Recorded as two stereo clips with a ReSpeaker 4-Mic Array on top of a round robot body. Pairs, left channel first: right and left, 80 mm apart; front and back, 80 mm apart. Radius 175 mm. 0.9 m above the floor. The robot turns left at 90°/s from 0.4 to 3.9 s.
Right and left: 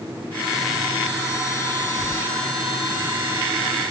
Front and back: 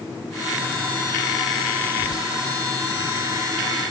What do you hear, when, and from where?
1.9 s whispering: 165° right, 0.8 m; by 2.3 s 160° left, 0.8 m